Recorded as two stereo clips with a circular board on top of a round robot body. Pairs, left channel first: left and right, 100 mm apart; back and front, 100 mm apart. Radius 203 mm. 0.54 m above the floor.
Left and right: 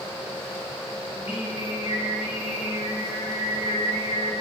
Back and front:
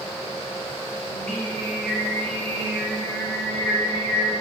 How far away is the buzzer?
No buzzer in this recording.